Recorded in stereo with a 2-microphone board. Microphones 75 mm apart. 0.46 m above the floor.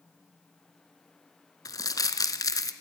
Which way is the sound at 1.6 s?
50° left (ahead or behind).